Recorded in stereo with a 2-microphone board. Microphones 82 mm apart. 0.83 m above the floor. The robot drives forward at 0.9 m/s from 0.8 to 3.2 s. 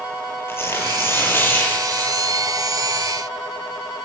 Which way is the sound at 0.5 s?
30° left (ahead or behind).